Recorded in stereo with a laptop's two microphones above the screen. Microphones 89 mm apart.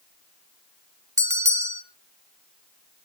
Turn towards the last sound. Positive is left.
turn(degrees=-35)  # may be behind; listen again after turning